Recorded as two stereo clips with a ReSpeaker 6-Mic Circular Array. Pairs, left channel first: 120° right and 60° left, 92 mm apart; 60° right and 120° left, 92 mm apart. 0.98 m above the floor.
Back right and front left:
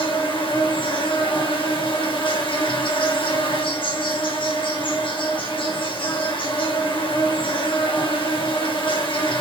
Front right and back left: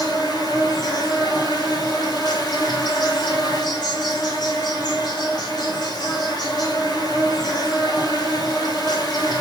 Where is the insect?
100° right, 3.5 m.